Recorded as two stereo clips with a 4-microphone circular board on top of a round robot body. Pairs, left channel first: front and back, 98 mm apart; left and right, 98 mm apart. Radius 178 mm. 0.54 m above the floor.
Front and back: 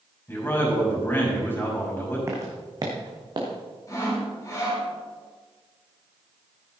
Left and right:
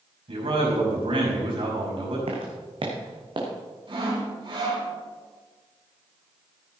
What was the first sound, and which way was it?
A man speaking, 65° right.